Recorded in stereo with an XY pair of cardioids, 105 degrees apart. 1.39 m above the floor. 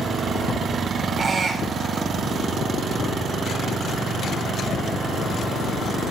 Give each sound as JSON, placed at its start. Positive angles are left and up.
{"t": 1.2, "sound": "a squeak", "azimuth_deg": -45, "distance_m": 3.5}